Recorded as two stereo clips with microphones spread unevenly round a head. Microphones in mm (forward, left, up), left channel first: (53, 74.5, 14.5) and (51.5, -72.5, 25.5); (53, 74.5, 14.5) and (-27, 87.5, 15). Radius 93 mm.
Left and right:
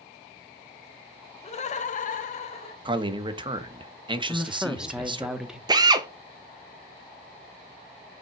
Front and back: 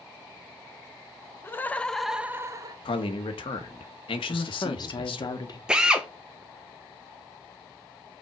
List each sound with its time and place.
1.4 s laughter: 50° left, 1.1 m; by 2.8 s 140° left, 0.9 m
2.9 s a man speaking: 30° right, 1.2 m
4.3 s a woman speaking: 5° right, 1.2 m
5.7 s a drill: 120° right, 0.7 m